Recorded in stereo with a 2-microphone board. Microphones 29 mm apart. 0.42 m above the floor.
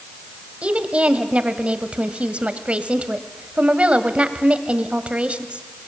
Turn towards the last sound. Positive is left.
turn(degrees=-45)  # may be behind; listen again after turning